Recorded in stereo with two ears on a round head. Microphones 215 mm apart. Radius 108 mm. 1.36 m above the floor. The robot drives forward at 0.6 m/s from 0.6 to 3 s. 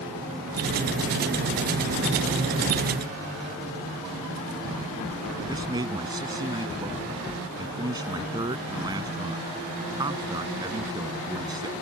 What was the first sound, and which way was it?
A man speaking, 15° right (ahead or behind).